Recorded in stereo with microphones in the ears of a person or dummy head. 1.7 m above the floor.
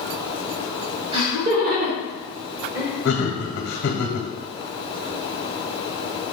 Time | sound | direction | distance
1.1 | laughter | 35° right (ahead or behind) | 1.3 m
3.0 | laughter | 65° left (ahead or behind) | 1.0 m